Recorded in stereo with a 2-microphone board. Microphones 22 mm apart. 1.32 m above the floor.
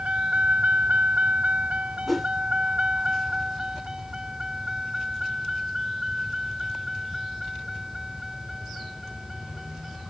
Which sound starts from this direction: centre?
A whoosh, at 2.1 s.